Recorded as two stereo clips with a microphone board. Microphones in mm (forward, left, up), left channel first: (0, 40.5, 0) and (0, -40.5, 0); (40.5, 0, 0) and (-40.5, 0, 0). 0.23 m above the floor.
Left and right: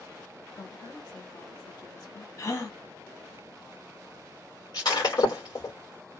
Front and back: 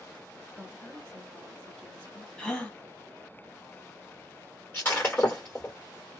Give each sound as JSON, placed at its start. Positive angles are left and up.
{"t": 0.5, "sound": "a woman speaking", "azimuth_deg": 75, "distance_m": 2.5}
{"t": 2.4, "sound": "a gasp", "azimuth_deg": 75, "distance_m": 1.5}
{"t": 4.7, "sound": "breaking glass", "azimuth_deg": 65, "distance_m": 3.0}